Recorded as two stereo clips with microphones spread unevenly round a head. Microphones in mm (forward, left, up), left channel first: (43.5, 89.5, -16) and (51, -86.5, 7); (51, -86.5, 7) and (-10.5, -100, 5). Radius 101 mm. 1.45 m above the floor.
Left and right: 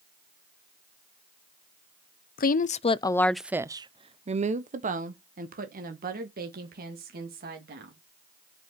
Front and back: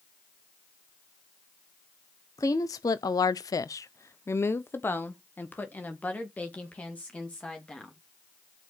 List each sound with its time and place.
2.4 s a woman speaking: 70° left, 0.7 m; by 8.0 s 60° right, 3 m